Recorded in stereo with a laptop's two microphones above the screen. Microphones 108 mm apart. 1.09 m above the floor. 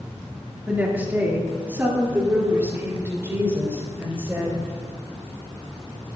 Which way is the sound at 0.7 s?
15° right (ahead or behind).